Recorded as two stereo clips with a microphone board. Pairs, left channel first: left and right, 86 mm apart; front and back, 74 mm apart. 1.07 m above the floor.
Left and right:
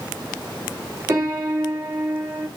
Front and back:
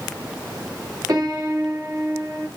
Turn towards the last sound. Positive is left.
turn(degrees=-150)